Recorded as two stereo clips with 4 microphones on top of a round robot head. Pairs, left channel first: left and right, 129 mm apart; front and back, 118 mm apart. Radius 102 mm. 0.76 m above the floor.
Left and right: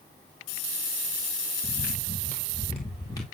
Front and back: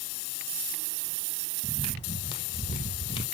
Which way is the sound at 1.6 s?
45° left.